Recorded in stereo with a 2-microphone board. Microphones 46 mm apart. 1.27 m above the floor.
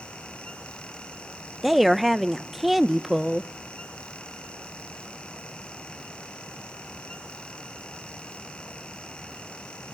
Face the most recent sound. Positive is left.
turn(degrees=-5)  # may be behind; listen again after turning